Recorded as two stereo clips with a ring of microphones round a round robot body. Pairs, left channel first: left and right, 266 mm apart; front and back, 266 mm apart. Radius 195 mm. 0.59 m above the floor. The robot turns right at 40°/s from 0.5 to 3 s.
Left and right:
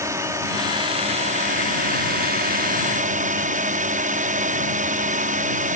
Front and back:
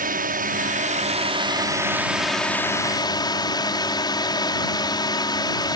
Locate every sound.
0.0 s a drone: 160° right; by 5.8 s 60° right